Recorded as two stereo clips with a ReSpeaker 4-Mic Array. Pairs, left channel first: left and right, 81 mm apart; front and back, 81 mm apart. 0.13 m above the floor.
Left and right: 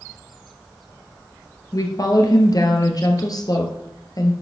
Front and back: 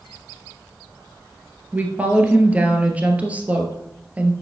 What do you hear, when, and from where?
1.7 s a woman speaking: 110° left, 1.9 m